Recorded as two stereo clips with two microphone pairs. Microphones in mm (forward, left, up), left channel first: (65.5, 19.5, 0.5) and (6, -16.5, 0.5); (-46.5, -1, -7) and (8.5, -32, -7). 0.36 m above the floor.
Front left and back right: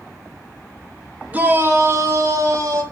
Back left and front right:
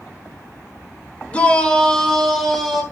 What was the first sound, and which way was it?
A shout, 175° right.